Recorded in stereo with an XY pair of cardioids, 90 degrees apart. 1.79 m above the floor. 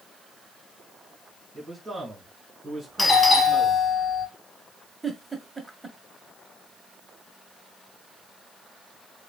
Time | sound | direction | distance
1.5 | a man speaking | 25° right | 2.5 m
3.0 | a doorbell | 25° left | 1.9 m
5.0 | a giggle | 15° right | 1.4 m